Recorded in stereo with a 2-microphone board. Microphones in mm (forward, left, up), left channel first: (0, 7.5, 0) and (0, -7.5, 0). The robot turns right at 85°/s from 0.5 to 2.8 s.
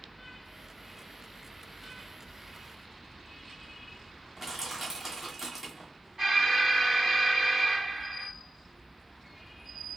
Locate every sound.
4.4 s crushing: 20° right (ahead or behind), 1.6 m
6.2 s an alarm: 35° right (ahead or behind), 3 m